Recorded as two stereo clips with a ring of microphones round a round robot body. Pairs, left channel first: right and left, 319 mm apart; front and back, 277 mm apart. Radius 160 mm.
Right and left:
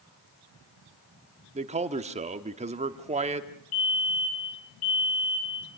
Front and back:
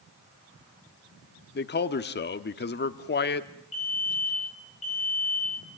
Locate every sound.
1.6 s a man speaking: 30° left, 1.1 m
3.7 s a fire alarm: 70° right, 5 m